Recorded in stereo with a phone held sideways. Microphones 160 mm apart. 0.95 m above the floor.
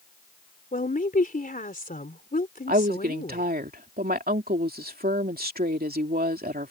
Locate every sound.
0.7 s a woman speaking: 65° left (ahead or behind)
2.7 s a woman speaking: 70° right (ahead or behind)